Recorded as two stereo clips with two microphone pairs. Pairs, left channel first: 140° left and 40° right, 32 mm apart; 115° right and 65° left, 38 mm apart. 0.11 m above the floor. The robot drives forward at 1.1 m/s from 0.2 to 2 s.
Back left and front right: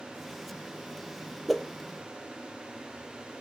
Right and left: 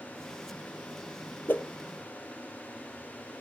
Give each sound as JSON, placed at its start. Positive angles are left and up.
{"t": 1.5, "sound": "a whoosh", "azimuth_deg": -125, "distance_m": 1.2}